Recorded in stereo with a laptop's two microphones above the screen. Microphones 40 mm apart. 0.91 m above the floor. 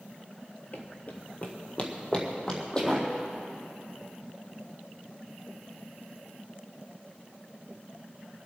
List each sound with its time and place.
0.7 s running footsteps: 45° left (ahead or behind), 1.2 m; by 3.1 s 20° left (ahead or behind), 2.5 m